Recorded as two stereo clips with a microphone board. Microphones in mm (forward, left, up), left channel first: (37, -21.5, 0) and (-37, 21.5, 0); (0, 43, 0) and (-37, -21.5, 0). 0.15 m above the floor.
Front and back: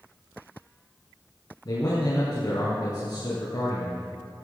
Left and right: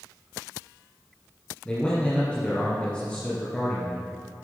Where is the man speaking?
10° right, 3 m.